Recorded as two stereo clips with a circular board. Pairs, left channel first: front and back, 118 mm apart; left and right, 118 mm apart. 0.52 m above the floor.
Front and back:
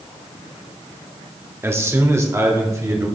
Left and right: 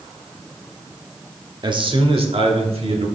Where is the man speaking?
120° right, 0.9 m; by 3.1 s 115° right, 2 m.